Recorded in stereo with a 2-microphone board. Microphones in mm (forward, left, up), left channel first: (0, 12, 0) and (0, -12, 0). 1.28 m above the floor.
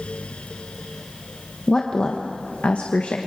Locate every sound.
1.7 s a woman speaking: 35° left (ahead or behind), 1.1 m; by 3.2 s 80° left, 1.4 m